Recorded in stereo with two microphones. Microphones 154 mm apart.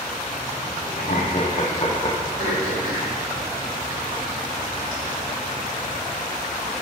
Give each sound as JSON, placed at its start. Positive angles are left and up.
{"t": 1.0, "sound": "laughter", "side_deg": 60, "distance_m": 1.0}
{"t": 2.4, "sound": "throat clearing", "side_deg": -80, "distance_m": 2.5}